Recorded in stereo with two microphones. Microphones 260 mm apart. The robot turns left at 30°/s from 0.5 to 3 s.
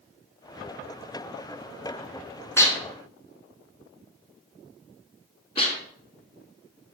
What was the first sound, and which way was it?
Dishes clattering, 10° left (ahead or behind).